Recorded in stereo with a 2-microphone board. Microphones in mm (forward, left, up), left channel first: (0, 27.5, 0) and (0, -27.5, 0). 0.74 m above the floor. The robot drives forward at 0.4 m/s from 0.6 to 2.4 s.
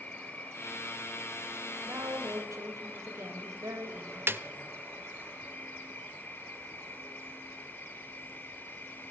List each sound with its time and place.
0.0 s an insect: 30° left (ahead or behind), 3.5 m; by 9.1 s 40° left (ahead or behind), 3 m
1.9 s a woman speaking: 70° right (ahead or behind), 4 m
4.3 s a snare drum: 45° right (ahead or behind), 0.6 m